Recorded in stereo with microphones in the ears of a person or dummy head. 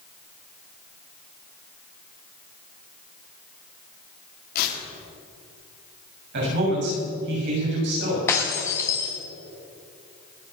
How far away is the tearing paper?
About 2.5 m.